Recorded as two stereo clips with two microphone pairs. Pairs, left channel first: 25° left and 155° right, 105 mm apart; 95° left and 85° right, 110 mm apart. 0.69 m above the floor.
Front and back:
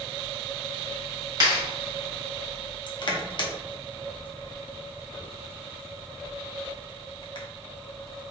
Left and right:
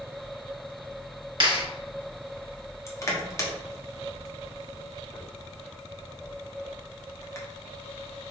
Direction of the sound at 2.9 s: 40° left.